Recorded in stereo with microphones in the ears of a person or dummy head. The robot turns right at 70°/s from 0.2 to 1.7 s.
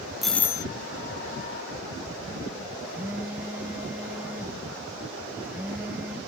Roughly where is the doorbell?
Ahead.